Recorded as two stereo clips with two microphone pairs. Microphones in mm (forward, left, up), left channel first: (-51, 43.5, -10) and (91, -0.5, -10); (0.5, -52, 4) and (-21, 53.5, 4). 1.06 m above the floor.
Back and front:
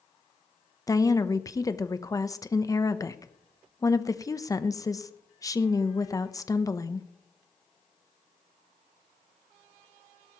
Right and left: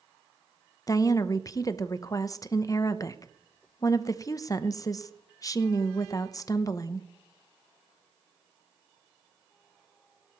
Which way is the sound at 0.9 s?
135° right.